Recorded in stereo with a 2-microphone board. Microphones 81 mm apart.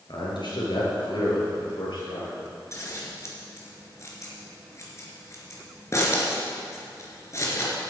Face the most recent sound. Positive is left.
turn(degrees=40)  # may be behind; listen again after turning